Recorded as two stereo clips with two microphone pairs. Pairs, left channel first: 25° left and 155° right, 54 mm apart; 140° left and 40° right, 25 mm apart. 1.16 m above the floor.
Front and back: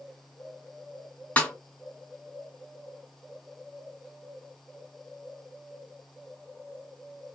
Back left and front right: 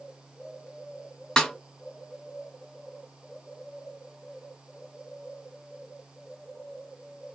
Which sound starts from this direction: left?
A snare drum, at 1.4 s.